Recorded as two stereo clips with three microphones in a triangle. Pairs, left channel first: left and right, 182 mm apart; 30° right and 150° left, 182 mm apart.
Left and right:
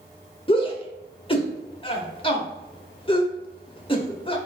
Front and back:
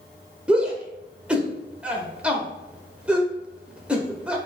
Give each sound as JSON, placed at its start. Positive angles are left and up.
{"t": 0.5, "sound": "a shout", "azimuth_deg": 70, "distance_m": 1.0}